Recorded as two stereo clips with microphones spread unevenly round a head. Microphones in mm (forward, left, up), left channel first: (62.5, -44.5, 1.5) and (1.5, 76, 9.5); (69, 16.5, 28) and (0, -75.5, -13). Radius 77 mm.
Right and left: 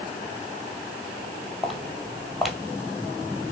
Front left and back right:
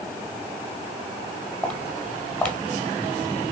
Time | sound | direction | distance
1.6 | footsteps | 35° left | 1.5 m